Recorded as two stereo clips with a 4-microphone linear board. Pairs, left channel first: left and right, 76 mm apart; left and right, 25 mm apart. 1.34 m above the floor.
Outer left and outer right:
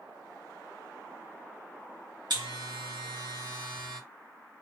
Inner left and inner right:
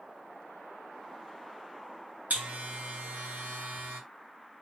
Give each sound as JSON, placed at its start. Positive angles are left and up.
{"t": 2.3, "sound": "a buzzer", "side_deg": -80, "distance_m": 1.3}